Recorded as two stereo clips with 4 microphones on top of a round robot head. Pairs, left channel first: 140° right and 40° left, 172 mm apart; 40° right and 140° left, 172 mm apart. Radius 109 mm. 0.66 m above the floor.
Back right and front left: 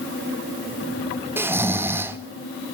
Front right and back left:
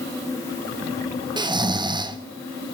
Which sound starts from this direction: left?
Snoring, at 1.4 s.